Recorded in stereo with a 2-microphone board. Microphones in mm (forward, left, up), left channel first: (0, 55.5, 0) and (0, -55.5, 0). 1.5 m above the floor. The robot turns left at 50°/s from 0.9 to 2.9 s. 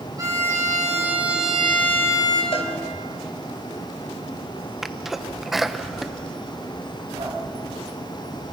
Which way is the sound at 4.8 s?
Centre (ahead or behind).